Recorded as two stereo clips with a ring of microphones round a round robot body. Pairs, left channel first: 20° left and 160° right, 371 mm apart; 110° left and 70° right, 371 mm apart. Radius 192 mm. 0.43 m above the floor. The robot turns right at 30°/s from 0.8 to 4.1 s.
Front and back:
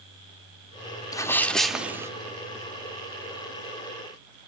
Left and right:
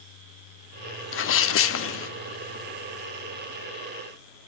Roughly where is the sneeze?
Left.